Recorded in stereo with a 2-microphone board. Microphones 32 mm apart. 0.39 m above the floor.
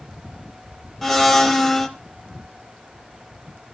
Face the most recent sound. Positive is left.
turn(degrees=10)  # may be behind; listen again after turning